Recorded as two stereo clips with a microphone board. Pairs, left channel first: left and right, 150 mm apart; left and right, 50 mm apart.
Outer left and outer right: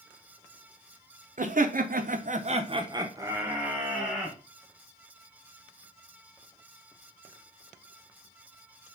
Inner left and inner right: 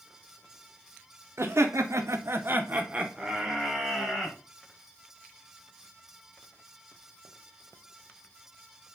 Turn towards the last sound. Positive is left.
turn(degrees=0)  # may be behind; listen again after turning